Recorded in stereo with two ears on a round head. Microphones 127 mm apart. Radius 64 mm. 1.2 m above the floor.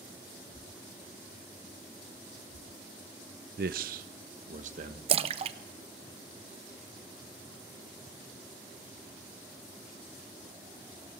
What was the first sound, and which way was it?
A man speaking, 70° right (ahead or behind).